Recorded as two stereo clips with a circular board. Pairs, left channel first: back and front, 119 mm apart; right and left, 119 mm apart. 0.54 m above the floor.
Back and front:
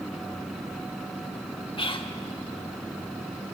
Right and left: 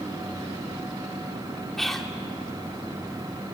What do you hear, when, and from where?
1.8 s whispering: 175° right, 1.6 m